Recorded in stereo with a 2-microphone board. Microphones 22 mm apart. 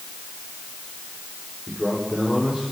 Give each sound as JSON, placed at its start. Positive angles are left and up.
{"t": 1.7, "sound": "a man speaking", "side_deg": -30, "distance_m": 5.5}